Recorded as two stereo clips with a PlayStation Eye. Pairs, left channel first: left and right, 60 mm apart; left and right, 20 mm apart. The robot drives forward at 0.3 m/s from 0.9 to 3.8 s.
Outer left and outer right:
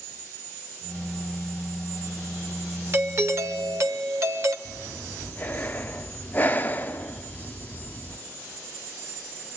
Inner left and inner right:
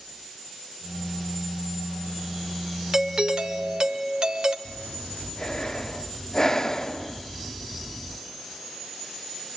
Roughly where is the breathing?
Left.